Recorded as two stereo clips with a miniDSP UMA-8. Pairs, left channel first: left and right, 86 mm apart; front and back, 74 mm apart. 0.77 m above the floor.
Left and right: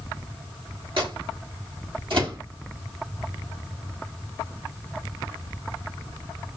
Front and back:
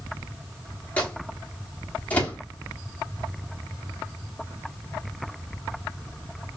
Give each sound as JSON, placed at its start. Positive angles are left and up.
{"t": 1.0, "sound": "a microwave", "azimuth_deg": -70, "distance_m": 1.2}